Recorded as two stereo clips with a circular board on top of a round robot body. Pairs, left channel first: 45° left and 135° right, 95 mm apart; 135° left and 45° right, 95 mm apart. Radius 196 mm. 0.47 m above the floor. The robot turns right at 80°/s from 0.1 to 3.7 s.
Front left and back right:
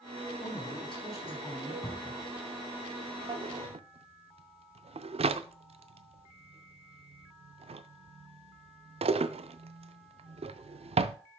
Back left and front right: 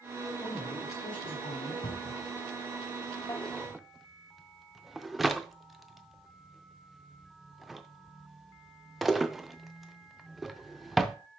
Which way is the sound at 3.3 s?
165° right.